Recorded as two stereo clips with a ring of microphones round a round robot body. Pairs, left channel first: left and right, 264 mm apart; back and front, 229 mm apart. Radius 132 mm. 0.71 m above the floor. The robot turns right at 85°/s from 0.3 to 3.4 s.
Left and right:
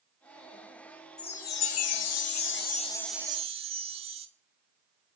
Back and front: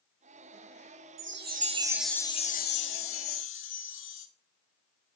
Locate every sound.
1.2 s a chime: 15° left, 1.4 m; by 4.3 s 155° right, 1.4 m